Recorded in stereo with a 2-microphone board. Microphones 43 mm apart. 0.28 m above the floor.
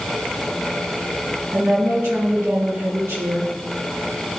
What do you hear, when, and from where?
1.5 s a woman speaking: 65° right (ahead or behind), 3.5 m